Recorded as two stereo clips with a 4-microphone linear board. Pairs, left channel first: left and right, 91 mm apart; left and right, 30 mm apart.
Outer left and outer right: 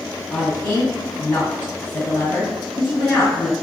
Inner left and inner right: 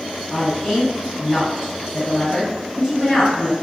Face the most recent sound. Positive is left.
turn(degrees=20)  # may be behind; listen again after turning